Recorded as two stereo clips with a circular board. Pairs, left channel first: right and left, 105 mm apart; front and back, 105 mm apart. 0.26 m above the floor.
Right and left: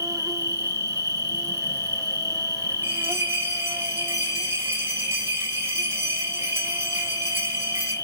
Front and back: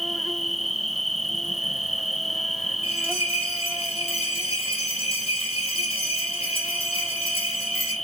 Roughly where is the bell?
Ahead.